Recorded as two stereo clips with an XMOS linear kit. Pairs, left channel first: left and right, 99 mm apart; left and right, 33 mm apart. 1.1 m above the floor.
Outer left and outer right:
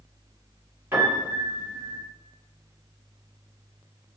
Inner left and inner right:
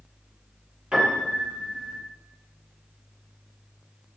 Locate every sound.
0.9 s a piano: 20° right (ahead or behind), 1.7 m